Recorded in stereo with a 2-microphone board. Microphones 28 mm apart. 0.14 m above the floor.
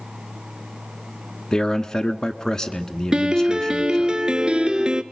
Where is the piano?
25° right (ahead or behind), 0.8 m.